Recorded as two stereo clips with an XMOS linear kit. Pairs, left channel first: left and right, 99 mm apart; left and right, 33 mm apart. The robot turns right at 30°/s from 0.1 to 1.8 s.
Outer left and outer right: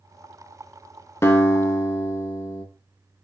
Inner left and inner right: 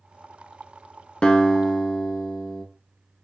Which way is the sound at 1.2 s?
30° left (ahead or behind).